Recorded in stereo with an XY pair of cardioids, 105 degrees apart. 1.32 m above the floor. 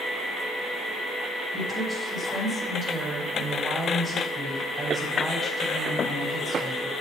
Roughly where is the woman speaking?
Ahead right.